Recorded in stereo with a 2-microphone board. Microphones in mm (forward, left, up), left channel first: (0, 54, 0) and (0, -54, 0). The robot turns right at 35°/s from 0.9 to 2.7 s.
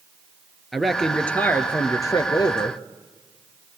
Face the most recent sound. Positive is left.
turn(degrees=65)